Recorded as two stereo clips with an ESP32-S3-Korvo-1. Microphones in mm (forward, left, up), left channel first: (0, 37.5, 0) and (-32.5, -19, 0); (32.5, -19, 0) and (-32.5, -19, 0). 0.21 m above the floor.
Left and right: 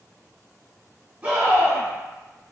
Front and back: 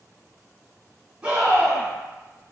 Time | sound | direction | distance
1.2 | a scream | 140° right | 1.3 m